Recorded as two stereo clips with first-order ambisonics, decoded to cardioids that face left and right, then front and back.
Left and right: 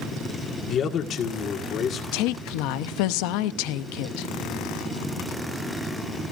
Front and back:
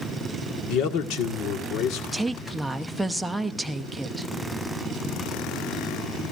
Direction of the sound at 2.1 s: 90° left.